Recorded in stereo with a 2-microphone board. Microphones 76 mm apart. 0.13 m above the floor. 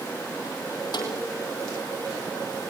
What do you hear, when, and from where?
0.9 s a snare drum: 60° left (ahead or behind), 4 m